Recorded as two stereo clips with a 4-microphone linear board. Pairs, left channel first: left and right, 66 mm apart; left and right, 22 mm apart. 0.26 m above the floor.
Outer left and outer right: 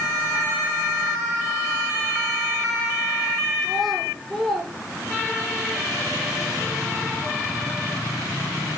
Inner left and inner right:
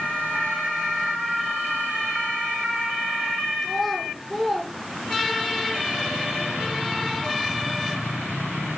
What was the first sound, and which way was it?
A child speaking, centre (ahead or behind).